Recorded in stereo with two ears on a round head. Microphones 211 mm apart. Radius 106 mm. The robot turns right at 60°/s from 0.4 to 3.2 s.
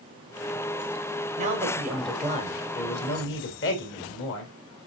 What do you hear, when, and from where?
1.4 s a man speaking: 40° right, 2 m; by 4.5 s 70° left, 2 m